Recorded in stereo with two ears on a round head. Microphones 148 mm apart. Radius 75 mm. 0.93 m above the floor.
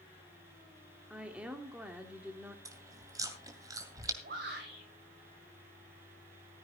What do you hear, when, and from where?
1.1 s a woman speaking: 5° right (ahead or behind), 2.5 m
2.6 s chewing: 20° right (ahead or behind), 2.5 m
4.2 s a shout: 65° right (ahead or behind), 5.5 m